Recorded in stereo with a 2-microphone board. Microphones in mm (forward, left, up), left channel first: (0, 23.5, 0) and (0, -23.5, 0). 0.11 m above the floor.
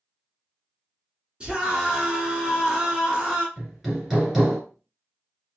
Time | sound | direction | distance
1.4 | a scream | 20° right (ahead or behind) | 1.4 m
3.6 | hammering | 5° right (ahead or behind) | 1.5 m